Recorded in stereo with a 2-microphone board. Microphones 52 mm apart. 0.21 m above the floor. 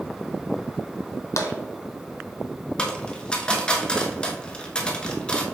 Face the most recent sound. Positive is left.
turn(degrees=20)  # may be behind; listen again after turning